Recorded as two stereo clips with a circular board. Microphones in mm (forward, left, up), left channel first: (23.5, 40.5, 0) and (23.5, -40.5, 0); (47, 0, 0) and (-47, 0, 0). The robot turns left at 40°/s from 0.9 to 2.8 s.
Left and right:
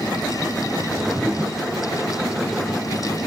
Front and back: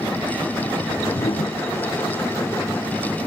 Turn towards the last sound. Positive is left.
turn(degrees=-75)